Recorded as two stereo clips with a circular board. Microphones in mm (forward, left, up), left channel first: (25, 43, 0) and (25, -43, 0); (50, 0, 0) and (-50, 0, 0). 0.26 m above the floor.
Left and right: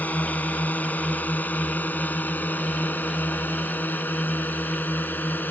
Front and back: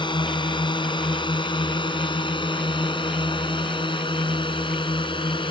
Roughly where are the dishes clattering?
No dishes clattering in this recording.